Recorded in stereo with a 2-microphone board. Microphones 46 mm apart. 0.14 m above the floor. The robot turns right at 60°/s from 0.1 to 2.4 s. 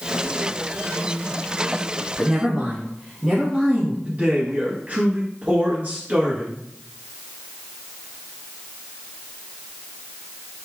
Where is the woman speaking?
10° right (ahead or behind), 1.4 m; by 4.0 s 15° right (ahead or behind), 1.4 m.